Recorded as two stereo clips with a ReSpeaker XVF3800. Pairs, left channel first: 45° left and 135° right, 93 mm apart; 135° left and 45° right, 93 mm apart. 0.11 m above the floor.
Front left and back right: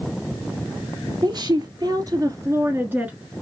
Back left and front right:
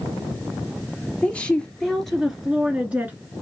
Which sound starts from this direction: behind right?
A woman speaking, at 1.2 s.